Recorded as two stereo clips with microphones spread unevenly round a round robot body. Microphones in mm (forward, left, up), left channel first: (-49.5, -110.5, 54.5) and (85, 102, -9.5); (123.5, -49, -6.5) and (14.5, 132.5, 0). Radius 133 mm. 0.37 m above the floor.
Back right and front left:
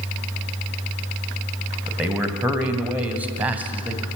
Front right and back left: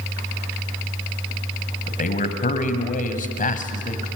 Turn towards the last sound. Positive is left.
turn(degrees=-20)